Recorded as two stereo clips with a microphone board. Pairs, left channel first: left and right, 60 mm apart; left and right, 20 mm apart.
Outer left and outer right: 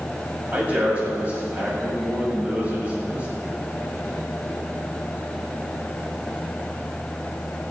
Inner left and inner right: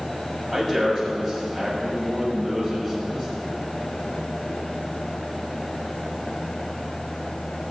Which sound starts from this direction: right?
A man speaking, at 0.5 s.